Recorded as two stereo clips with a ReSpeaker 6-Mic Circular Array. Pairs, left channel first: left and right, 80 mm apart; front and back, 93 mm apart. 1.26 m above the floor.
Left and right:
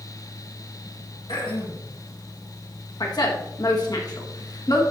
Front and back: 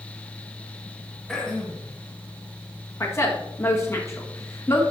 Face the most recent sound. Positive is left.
turn(degrees=60)